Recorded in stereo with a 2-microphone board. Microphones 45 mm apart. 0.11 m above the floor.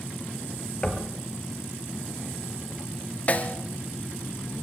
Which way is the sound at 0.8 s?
20° left (ahead or behind).